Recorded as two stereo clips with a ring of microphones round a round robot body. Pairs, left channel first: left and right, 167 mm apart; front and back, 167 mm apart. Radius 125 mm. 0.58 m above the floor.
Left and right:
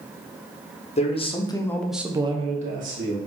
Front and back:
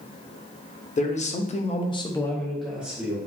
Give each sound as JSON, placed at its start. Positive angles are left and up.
{"t": 1.0, "sound": "a man speaking", "azimuth_deg": 40, "distance_m": 1.0}